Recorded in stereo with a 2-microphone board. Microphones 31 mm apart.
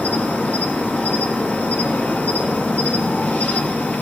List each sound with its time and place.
0.0 s an insect: 80° left, 3 m